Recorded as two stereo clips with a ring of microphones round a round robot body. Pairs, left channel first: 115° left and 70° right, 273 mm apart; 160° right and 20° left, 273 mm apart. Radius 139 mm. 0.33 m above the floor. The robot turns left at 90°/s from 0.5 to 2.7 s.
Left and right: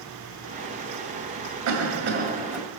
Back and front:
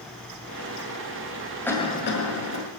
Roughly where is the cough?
Right.